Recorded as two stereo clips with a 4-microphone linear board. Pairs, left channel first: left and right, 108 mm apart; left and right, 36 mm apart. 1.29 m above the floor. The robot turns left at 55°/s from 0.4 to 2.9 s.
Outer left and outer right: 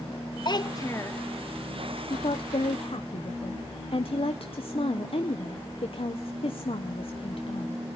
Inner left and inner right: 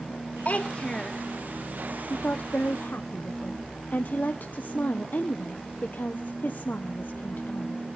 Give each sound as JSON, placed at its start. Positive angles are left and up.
{"t": 0.5, "sound": "a child speaking", "azimuth_deg": 60, "distance_m": 0.7}
{"t": 2.1, "sound": "a woman speaking", "azimuth_deg": 120, "distance_m": 0.8}